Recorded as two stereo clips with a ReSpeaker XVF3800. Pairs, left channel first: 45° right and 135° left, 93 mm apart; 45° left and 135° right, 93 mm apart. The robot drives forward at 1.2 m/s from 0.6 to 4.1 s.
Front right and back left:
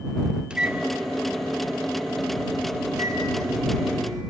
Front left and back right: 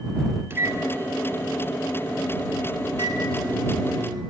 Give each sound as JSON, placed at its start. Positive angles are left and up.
{"t": 0.5, "sound": "a microwave", "azimuth_deg": -160, "distance_m": 1.0}